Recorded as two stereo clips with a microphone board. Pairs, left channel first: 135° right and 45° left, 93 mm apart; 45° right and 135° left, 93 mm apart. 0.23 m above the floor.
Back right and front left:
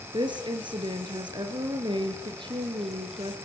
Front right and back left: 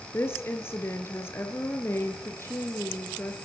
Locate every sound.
0.1 s a woman speaking: 15° left, 4 m